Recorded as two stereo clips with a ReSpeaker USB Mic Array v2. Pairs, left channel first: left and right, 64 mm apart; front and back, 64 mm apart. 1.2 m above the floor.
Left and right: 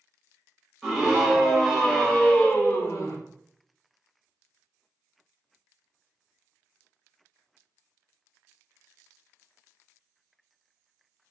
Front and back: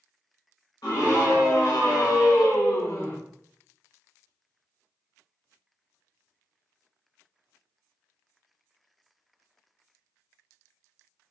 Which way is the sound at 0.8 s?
5° right.